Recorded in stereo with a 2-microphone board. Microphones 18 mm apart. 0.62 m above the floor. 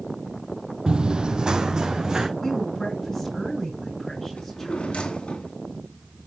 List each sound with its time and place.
0.9 s running footsteps: 45° right (ahead or behind), 0.8 m; by 2.3 s 35° right (ahead or behind), 2.5 m
2.4 s a woman speaking: 15° left (ahead or behind), 6 m
4.4 s a drawer: 85° left, 2 m